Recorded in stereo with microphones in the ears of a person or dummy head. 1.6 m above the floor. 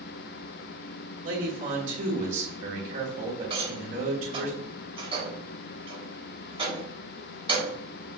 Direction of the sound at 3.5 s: 35° right (ahead or behind).